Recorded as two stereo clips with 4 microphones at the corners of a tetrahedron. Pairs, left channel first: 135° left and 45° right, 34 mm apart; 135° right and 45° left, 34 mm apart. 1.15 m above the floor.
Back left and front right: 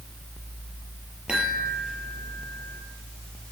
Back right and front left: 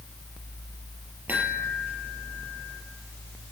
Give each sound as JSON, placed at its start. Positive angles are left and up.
{"t": 1.3, "sound": "a chime", "azimuth_deg": 20, "distance_m": 5.5}